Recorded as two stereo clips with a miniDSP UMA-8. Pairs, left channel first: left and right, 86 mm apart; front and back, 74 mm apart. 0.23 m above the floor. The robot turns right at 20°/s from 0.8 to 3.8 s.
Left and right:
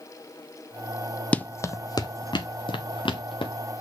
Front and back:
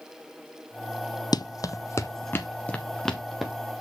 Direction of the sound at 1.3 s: 15° left.